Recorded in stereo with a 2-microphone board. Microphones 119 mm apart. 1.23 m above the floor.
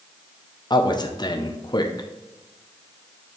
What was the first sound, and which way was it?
A man speaking, 40° left (ahead or behind).